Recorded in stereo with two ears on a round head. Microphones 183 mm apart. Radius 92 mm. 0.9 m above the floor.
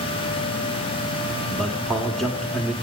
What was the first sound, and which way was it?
A man speaking, centre (ahead or behind).